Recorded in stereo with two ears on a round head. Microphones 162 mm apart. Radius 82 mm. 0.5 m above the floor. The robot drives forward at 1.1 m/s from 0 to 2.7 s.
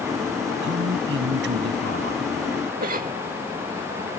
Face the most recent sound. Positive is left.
turn(degrees=-45)  # may be behind; listen again after turning